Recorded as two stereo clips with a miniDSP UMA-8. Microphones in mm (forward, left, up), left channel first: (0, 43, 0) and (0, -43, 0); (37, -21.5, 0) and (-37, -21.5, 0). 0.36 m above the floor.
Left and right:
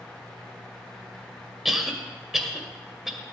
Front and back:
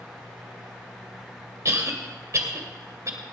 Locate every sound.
1.6 s a cough: 175° right, 1.9 m